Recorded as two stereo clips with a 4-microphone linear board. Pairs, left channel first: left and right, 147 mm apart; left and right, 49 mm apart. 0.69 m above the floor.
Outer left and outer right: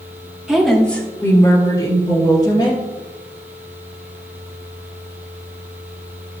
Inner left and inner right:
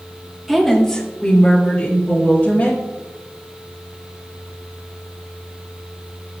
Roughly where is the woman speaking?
Centre.